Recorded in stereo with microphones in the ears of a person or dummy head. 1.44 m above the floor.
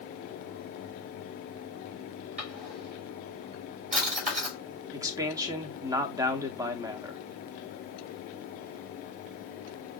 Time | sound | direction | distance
2.4 | a drawer | 40° right (ahead or behind) | 2.5 m
4.9 | a man speaking | 15° right (ahead or behind) | 0.8 m